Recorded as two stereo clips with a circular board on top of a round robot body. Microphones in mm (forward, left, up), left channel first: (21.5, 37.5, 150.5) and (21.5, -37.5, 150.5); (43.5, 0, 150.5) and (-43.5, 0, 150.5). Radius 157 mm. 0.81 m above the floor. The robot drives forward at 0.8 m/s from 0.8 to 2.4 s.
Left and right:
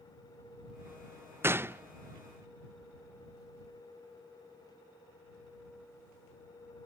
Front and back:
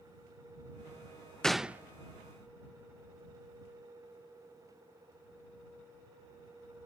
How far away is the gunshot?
About 0.7 m.